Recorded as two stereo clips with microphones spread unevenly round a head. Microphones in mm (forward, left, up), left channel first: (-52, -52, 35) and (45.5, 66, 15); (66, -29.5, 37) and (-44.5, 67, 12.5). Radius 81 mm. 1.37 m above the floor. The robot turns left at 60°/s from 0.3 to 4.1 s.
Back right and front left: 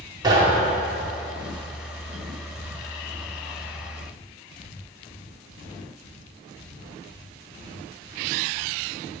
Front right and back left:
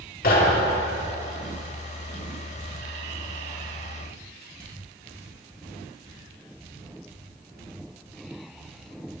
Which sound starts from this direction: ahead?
Knocking, at 0.2 s.